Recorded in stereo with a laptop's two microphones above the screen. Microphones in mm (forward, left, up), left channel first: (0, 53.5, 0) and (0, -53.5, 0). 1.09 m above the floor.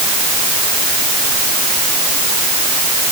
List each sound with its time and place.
Only background noise.